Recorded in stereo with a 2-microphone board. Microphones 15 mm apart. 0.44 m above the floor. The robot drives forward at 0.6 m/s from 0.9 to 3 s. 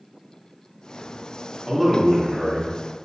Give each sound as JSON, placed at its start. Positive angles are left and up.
{"t": 1.7, "sound": "a man speaking", "side_deg": -5, "distance_m": 0.8}